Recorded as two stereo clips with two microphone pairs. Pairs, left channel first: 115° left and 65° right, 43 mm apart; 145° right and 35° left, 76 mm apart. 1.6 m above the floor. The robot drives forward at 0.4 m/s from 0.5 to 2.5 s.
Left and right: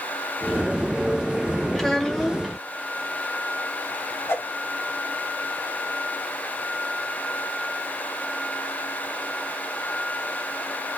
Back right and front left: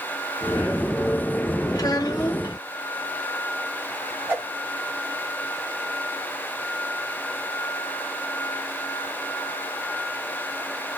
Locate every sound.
1.8 s a child speaking: 170° right, 1.1 m
4.3 s a whoosh: 100° left, 1.4 m